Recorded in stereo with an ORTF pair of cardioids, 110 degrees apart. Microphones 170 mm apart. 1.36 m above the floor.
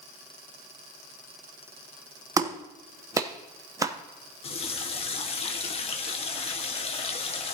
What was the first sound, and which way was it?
A clap, 20° right.